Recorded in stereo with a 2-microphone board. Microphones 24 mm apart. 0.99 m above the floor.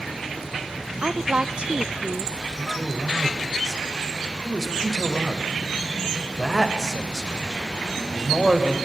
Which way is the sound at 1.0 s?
40° right (ahead or behind).